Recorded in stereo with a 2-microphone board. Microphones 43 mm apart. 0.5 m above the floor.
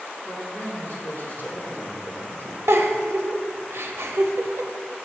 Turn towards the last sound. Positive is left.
turn(degrees=-75)  # may be behind; listen again after turning